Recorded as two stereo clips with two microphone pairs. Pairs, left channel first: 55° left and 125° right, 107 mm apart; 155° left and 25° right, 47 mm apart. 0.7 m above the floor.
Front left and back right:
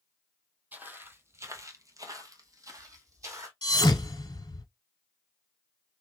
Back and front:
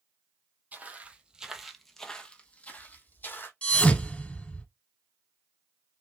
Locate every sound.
0.7 s footsteps: 60° right, 0.9 m; by 3.5 s straight behind, 1.2 m
3.6 s a thud: 95° left, 1.1 m